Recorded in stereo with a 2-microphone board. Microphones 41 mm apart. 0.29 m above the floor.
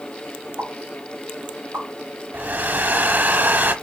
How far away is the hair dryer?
About 0.8 m.